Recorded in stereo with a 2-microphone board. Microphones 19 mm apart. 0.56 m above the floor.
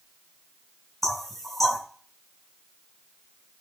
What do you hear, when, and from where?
1.0 s knocking: 20° left (ahead or behind), 3.5 m